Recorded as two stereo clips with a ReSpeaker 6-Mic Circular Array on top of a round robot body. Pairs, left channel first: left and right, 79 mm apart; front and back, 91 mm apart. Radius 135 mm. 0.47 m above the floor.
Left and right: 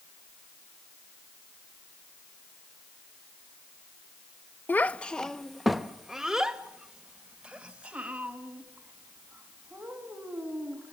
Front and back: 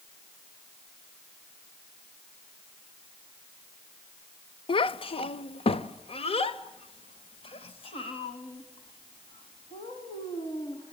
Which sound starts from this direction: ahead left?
A child speaking, at 4.7 s.